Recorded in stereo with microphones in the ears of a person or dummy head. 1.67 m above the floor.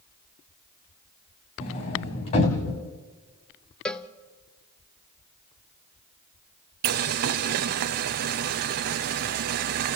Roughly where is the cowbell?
Centre.